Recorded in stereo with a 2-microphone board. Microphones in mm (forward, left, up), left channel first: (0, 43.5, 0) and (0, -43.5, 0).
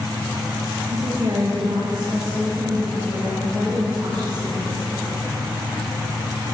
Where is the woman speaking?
45° right (ahead or behind), 1.0 m; by 5.0 s 60° right (ahead or behind), 3 m.